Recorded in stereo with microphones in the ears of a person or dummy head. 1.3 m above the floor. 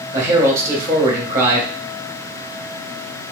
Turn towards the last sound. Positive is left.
turn(degrees=-15)  # may be behind; listen again after turning